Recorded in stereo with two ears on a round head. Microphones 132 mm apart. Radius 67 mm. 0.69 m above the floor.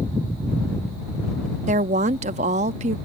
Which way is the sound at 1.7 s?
45° right (ahead or behind).